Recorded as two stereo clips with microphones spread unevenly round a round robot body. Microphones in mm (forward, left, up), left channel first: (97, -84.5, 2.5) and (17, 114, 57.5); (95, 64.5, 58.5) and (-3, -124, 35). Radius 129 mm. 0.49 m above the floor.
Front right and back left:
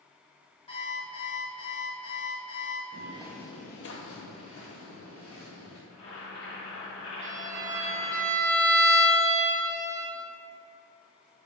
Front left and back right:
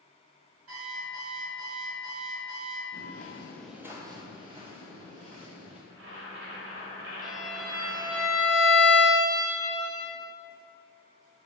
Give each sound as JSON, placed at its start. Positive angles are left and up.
{"t": 0.7, "sound": "an alarm clock", "azimuth_deg": -135, "distance_m": 1.5}
{"t": 2.9, "sound": "footsteps", "azimuth_deg": 95, "distance_m": 0.7}
{"t": 5.9, "sound": "boiling", "azimuth_deg": -100, "distance_m": 1.4}
{"t": 7.2, "sound": "a violin", "azimuth_deg": 155, "distance_m": 0.5}